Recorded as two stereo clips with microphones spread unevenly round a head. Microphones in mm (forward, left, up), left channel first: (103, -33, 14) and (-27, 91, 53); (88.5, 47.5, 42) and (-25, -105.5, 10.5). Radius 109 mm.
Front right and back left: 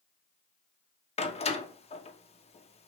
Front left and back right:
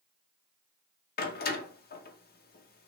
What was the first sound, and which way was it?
A door slam, 15° left.